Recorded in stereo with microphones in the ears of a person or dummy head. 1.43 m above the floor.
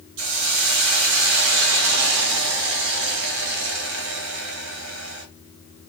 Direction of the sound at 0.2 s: 80° right.